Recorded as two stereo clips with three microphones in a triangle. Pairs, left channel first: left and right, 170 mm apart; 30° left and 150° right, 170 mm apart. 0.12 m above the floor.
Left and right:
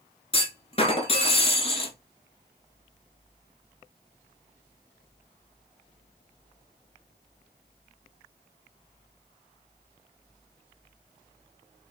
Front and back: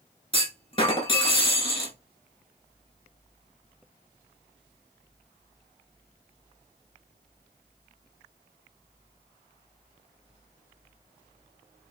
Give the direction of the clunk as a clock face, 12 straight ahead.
10 o'clock.